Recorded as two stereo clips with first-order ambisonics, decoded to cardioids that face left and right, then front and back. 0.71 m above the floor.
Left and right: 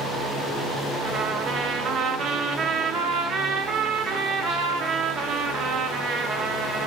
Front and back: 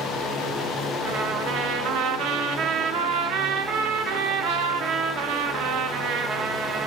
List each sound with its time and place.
1.0 s a trumpet: 145° right, 0.5 m